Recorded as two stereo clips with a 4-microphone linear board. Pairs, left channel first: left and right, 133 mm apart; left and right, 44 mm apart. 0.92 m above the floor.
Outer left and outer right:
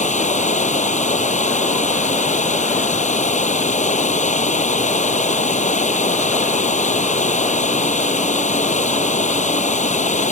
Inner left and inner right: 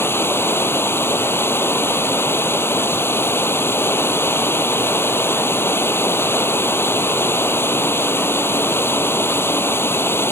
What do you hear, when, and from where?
0.0 s running water: 65° left (ahead or behind)